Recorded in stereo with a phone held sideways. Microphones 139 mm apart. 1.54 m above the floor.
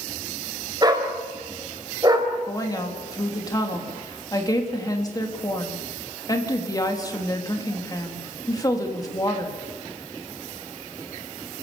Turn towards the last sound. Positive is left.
turn(degrees=25)  # may be behind; listen again after turning